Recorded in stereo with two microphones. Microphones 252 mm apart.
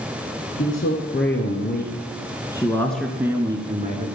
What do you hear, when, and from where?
0.6 s a man speaking: 55° left (ahead or behind), 2.5 m; by 4.1 s 30° right (ahead or behind), 1.8 m